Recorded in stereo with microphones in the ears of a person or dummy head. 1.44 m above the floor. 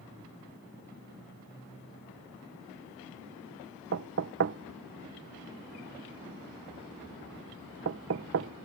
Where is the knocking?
55° right (ahead or behind).